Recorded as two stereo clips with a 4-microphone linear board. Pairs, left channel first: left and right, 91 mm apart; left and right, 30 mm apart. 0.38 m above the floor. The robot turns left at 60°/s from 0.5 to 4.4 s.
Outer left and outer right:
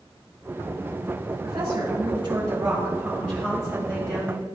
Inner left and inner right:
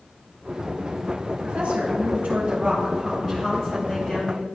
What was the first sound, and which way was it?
A woman speaking, 50° right.